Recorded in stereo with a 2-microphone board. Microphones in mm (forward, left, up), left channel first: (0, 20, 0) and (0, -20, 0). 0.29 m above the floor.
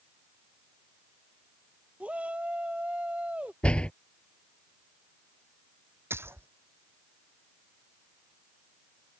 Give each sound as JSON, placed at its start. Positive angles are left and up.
{"t": 2.0, "sound": "a shout", "side_deg": -35}
{"t": 3.6, "sound": "a door slam", "side_deg": 25}
{"t": 6.1, "sound": "a splash", "side_deg": -85}